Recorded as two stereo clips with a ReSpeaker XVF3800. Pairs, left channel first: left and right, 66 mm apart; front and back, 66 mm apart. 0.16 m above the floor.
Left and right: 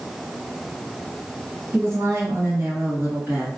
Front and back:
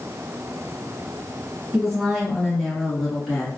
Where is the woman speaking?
95° right, 2.0 m; by 3.5 s 75° right, 1.5 m.